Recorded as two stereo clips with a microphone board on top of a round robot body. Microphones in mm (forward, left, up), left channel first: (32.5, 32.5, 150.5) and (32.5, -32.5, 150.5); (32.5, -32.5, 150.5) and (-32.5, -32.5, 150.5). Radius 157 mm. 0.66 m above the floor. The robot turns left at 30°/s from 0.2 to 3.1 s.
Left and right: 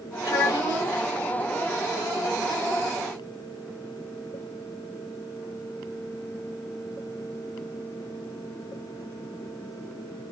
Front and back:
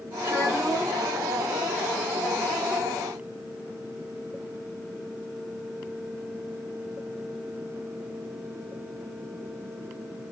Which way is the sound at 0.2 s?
120° left.